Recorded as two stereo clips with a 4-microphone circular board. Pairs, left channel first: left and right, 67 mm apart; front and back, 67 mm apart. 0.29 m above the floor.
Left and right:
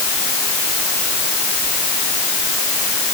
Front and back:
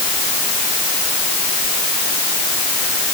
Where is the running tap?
No running tap in this recording.